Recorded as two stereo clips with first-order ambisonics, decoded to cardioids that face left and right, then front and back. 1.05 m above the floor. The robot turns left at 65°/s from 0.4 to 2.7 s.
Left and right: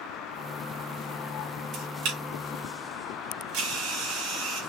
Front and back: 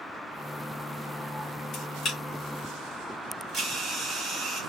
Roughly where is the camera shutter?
Ahead right.